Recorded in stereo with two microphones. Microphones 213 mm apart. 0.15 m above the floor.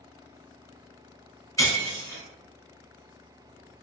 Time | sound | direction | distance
1.6 | breaking glass | 15° left (ahead or behind) | 0.8 m